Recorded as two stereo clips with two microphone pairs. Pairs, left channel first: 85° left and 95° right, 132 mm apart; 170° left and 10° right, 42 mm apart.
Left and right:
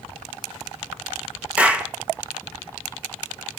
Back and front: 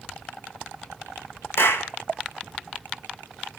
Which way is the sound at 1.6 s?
Straight behind.